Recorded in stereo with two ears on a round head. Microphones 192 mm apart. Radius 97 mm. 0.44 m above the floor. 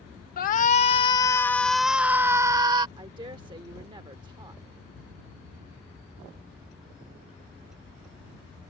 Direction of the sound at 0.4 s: 40° left (ahead or behind).